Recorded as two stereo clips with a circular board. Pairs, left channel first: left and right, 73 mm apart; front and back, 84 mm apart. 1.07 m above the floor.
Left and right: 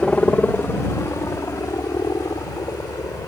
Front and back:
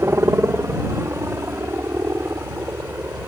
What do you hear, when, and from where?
0.0 s a helicopter: 155° left; by 3.3 s 120° left